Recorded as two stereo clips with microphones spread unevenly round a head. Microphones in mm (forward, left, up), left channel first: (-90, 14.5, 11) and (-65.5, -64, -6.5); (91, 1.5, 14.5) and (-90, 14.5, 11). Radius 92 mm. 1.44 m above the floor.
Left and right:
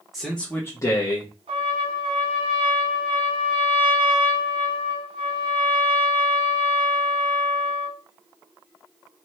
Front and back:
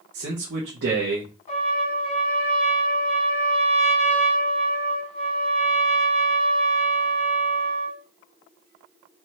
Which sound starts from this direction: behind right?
A man speaking, at 0.1 s.